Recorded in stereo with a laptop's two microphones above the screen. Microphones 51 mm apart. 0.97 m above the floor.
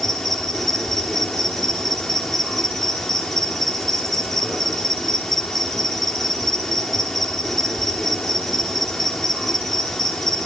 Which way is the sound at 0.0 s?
5° left (ahead or behind).